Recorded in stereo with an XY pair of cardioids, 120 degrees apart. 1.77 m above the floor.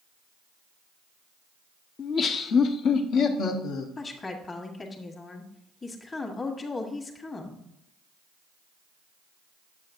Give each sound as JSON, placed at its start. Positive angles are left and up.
{"t": 2.0, "sound": "laughter", "azimuth_deg": 40, "distance_m": 0.9}
{"t": 4.0, "sound": "a woman speaking", "azimuth_deg": 25, "distance_m": 1.6}